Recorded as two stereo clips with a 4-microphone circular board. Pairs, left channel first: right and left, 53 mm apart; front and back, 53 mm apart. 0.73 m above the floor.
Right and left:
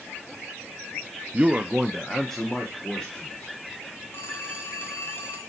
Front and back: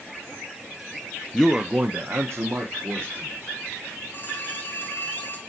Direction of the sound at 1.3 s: 75° left.